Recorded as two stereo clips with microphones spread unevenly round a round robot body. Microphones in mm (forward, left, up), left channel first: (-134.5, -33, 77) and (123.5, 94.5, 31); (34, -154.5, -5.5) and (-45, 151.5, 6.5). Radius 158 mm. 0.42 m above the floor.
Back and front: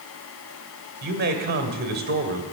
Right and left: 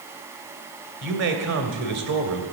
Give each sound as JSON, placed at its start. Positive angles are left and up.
{"t": 1.0, "sound": "a man speaking", "azimuth_deg": 70, "distance_m": 2.0}